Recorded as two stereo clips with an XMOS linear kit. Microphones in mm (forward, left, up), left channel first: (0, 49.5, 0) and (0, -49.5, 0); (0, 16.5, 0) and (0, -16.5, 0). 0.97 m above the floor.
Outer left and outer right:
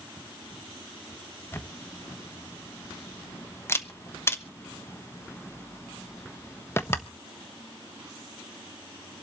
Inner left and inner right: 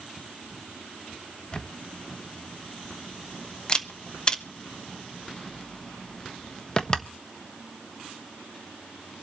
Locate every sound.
1.5 s a camera shutter: 25° left (ahead or behind), 1.1 m